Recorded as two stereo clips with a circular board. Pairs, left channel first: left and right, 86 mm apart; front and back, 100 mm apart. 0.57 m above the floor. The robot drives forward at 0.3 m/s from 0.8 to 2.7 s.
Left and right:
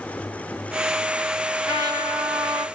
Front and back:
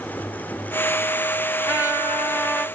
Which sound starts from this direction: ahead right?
A trumpet, at 1.7 s.